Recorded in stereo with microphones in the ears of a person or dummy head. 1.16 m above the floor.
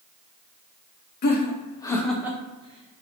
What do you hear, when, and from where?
1.2 s laughter: 45° left (ahead or behind), 0.8 m; by 3.0 s 45° right (ahead or behind), 1.0 m